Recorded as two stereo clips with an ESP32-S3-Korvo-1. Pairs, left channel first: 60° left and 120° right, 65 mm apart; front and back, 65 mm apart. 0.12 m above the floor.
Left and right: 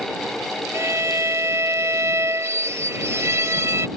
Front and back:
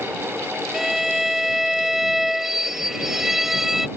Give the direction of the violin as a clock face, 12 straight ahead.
3 o'clock.